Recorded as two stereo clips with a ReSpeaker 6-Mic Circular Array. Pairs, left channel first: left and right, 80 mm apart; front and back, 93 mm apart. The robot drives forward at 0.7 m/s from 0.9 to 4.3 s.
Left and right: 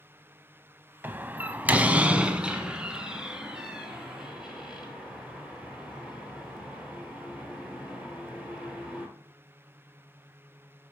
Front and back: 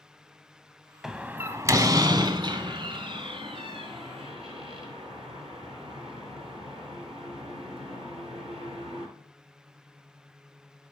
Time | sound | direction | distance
1.0 | a door slam | 100° right | 0.7 m